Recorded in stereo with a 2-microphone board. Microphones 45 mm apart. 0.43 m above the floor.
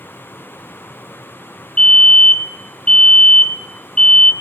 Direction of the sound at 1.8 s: 20° left (ahead or behind).